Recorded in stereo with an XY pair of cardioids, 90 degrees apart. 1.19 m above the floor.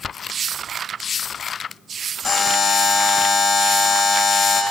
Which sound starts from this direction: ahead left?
A buzzer, at 2.2 s.